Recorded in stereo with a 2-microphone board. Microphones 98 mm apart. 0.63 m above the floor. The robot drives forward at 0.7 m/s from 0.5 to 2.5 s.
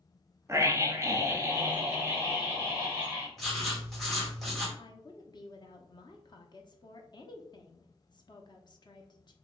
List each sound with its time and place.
0.5 s a scream: 25° right (ahead or behind), 0.8 m; by 3.3 s 15° right (ahead or behind), 1.4 m
3.4 s writing: centre (ahead or behind), 1.8 m
4.8 s a woman speaking: 45° left (ahead or behind), 0.8 m